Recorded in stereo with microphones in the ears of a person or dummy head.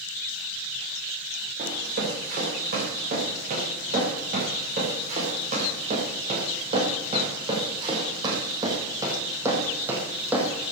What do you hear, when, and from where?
1.6 s running footsteps: 50° right (ahead or behind), 8 m; by 10.7 s 5° right (ahead or behind), 4 m